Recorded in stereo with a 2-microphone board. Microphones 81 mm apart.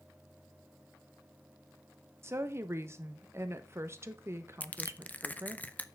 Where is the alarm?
No alarm in this recording.